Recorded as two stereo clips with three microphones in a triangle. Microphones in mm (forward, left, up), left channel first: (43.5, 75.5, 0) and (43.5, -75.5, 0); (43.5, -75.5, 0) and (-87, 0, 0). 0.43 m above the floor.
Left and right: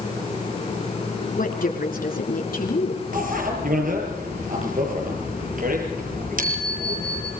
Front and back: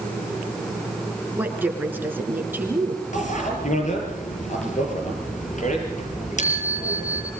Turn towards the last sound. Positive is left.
turn(degrees=-65)